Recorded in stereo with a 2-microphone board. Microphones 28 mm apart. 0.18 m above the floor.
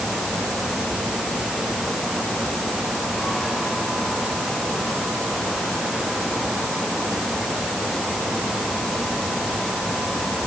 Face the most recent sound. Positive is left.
No sound to turn to.